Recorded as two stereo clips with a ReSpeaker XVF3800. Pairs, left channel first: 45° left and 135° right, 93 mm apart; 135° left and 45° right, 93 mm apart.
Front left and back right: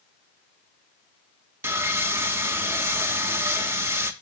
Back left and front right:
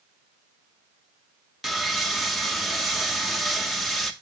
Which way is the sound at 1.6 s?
135° right.